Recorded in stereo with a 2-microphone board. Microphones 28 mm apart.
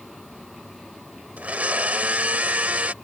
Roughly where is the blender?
Right.